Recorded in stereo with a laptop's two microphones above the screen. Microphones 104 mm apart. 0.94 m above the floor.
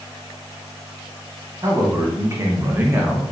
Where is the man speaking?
35° right (ahead or behind), 1.4 m; by 3.3 s 15° right (ahead or behind), 0.8 m.